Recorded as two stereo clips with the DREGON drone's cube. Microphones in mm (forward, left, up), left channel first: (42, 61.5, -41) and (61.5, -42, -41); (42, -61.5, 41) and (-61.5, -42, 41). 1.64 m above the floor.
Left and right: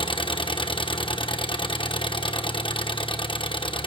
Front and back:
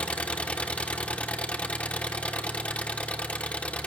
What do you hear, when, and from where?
0.0 s an engine running: 65° left, 1.1 m